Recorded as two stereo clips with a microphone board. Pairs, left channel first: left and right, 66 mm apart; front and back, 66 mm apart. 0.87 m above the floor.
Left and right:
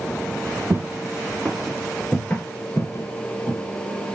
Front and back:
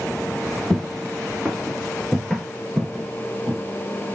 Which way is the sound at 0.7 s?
95° right.